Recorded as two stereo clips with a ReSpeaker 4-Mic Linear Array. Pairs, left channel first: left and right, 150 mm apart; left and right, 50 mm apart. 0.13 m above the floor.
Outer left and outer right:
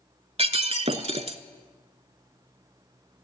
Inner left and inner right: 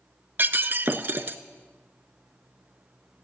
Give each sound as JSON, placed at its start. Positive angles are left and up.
{"t": 0.4, "sound": "breaking glass", "side_deg": -45, "distance_m": 0.7}